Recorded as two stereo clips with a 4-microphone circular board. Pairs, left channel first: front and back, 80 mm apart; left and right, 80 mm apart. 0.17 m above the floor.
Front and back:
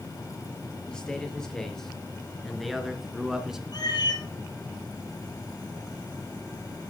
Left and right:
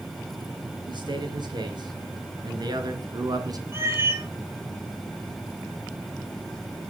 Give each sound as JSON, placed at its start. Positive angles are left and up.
{"t": 0.9, "sound": "a man speaking", "azimuth_deg": -80, "distance_m": 3.5}
{"t": 3.7, "sound": "a cat meowing", "azimuth_deg": -30, "distance_m": 2.0}